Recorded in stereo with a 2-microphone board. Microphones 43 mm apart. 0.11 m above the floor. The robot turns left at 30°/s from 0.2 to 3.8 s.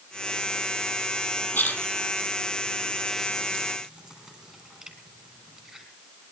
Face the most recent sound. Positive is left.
turn(degrees=-20)  # may be behind; listen again after turning